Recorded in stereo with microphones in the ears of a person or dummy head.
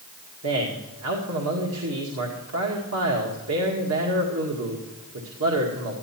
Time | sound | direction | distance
0.4 | a man speaking | 85° right | 1.9 m